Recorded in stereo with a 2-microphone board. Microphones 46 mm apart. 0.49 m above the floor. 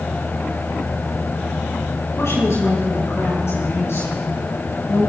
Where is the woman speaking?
65° left (ahead or behind), 5 m; by 5.1 s 70° left (ahead or behind), 8 m.